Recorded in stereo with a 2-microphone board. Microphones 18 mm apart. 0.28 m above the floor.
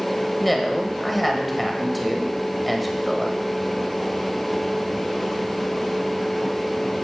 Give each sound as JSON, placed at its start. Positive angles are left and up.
{"t": 0.4, "sound": "a woman speaking", "side_deg": 5, "distance_m": 1.4}